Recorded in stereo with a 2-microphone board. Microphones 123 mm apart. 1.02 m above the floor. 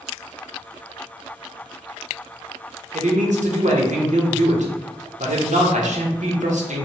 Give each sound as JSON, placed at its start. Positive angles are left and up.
{"t": 2.9, "sound": "a man speaking", "side_deg": -75, "distance_m": 0.7}